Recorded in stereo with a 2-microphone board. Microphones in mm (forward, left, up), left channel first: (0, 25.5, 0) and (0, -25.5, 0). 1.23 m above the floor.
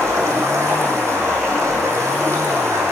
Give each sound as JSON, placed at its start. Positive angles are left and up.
{"t": 0.0, "sound": "running water", "side_deg": -65, "distance_m": 8.0}